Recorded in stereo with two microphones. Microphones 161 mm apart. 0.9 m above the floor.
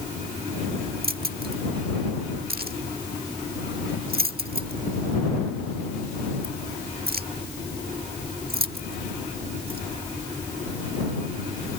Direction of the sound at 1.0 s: 75° right (ahead or behind).